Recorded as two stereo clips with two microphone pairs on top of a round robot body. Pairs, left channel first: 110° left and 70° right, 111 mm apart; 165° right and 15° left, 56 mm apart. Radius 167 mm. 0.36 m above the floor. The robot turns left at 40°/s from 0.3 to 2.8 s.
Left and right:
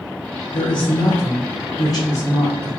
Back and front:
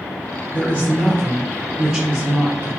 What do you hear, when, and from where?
0.5 s a man speaking: 130° left, 1.1 m; by 2.7 s 40° left, 1.1 m